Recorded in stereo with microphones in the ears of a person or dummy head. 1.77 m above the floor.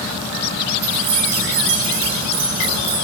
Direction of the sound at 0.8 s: 30° right (ahead or behind).